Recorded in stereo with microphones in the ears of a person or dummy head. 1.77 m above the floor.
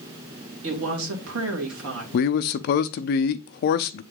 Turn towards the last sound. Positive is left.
turn(degrees=45)  # may be behind; listen again after turning